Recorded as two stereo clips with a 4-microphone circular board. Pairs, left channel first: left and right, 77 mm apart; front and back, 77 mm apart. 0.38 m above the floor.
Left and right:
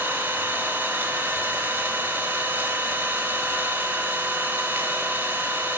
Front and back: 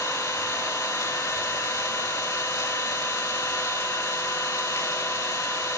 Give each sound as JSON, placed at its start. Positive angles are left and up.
{"t": 0.0, "sound": "an engine running", "azimuth_deg": -35, "distance_m": 0.9}